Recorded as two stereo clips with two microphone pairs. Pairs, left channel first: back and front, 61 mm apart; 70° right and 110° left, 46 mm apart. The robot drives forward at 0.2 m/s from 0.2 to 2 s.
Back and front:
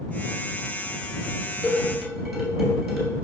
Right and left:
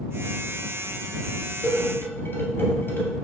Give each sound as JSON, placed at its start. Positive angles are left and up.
{"t": 1.6, "sound": "dishes clattering", "azimuth_deg": -85, "distance_m": 1.3}